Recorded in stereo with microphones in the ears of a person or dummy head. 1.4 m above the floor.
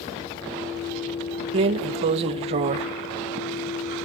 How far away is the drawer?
About 0.5 m.